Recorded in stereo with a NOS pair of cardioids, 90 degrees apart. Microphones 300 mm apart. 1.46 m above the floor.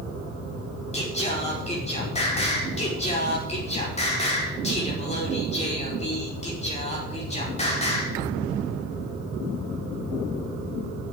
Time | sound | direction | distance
0.9 | singing | 20° left | 5 m